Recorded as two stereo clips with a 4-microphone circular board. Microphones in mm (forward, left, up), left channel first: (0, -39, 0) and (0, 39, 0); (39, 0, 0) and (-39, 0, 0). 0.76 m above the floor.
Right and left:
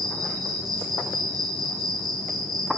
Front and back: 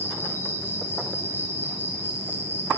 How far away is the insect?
About 1.8 m.